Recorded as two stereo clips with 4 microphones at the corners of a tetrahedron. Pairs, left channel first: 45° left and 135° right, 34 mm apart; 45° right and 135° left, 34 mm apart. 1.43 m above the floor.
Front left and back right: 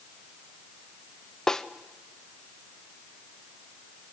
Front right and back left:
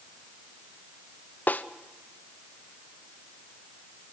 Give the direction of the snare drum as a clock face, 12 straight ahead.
1 o'clock.